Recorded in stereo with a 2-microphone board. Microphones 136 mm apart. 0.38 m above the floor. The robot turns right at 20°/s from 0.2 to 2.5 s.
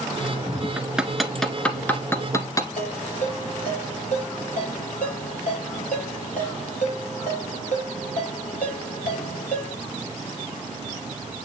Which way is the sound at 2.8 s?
70° left (ahead or behind).